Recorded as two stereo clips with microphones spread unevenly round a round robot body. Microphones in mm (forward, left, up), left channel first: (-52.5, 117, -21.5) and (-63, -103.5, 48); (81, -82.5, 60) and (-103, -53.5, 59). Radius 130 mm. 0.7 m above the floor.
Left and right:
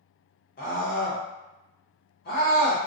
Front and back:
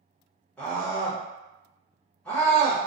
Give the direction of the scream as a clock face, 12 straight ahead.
10 o'clock.